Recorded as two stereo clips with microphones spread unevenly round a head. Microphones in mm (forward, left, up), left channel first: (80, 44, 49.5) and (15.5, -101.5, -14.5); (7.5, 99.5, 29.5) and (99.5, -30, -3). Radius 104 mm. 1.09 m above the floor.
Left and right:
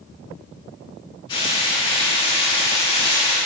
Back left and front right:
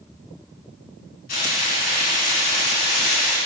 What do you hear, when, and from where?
1.3 s frying: 120° left, 2 m